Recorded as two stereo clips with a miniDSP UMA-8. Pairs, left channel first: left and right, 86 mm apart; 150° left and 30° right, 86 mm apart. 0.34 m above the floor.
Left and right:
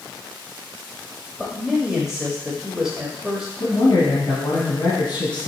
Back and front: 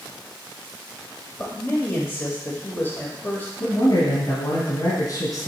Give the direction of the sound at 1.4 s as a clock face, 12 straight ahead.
6 o'clock.